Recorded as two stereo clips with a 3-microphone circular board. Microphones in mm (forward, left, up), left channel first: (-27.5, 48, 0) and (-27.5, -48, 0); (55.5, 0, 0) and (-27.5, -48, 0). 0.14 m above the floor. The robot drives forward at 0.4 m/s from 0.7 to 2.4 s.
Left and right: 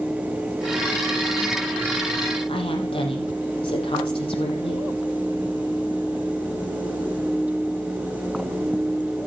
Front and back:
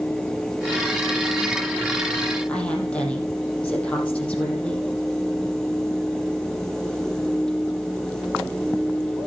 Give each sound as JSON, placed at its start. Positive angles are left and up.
{"t": 2.5, "sound": "a woman speaking", "azimuth_deg": 110, "distance_m": 6.0}